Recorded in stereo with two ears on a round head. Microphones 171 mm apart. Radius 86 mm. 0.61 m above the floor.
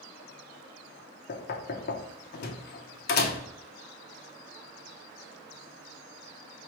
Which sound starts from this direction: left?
Knocking, at 1.3 s.